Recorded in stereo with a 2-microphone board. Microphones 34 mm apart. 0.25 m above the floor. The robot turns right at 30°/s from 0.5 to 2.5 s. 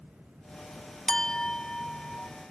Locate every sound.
1.1 s a clink: 20° left (ahead or behind), 0.6 m; by 2.3 s 30° left (ahead or behind), 0.6 m